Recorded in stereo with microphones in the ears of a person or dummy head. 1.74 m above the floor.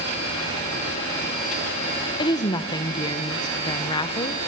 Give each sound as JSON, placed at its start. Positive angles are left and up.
{"t": 2.2, "sound": "a woman speaking", "side_deg": 25, "distance_m": 1.0}